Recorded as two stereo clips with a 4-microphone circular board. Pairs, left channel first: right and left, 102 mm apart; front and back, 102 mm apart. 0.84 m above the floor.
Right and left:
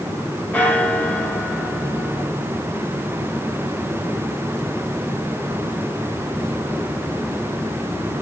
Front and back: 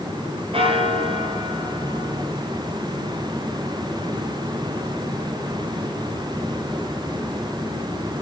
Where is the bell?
165° right, 1.9 m.